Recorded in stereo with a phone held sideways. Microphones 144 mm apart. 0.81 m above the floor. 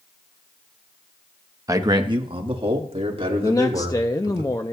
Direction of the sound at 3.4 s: 25° left (ahead or behind).